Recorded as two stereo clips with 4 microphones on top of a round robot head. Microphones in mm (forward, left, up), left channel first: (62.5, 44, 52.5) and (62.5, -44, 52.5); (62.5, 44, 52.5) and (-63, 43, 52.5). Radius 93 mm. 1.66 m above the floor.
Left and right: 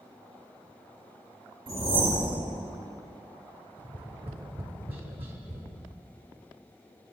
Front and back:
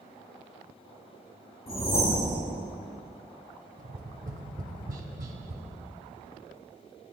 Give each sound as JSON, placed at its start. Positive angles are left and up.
{"t": 1.7, "sound": "a whoosh", "azimuth_deg": -70, "distance_m": 4.5}
{"t": 3.8, "sound": "tapping", "azimuth_deg": -140, "distance_m": 1.3}